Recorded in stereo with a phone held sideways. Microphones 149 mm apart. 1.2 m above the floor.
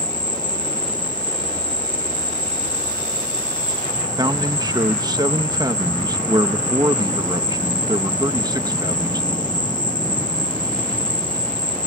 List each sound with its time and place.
0.0 s an insect: 30° left (ahead or behind)
4.2 s a man speaking: 25° right (ahead or behind)